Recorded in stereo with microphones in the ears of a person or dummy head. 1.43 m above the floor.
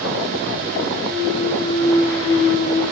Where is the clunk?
15° left (ahead or behind), 8.5 m.